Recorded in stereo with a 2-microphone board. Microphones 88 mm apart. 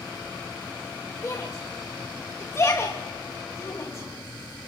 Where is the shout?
35° left (ahead or behind), 1.8 m.